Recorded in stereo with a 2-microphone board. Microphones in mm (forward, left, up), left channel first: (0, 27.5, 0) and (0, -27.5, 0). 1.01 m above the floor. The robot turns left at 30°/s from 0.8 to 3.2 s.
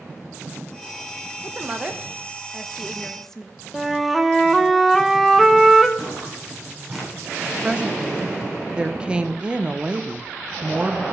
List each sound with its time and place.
1.4 s a woman speaking: 30° right (ahead or behind), 1.0 m; by 3.6 s 10° left (ahead or behind), 1.0 m
3.7 s a flute: centre (ahead or behind), 0.8 m
6.0 s footsteps: 15° right (ahead or behind), 7.5 m; by 7.1 s 5° right (ahead or behind), 7.5 m
7.6 s a woman speaking: 20° right (ahead or behind), 0.7 m